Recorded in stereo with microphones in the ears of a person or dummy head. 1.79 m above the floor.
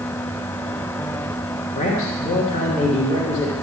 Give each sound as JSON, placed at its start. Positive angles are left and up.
{"t": 1.8, "sound": "a man speaking", "side_deg": 40, "distance_m": 2.5}